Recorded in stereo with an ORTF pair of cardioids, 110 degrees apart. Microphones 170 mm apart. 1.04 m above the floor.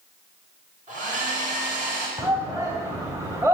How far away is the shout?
About 2.5 m.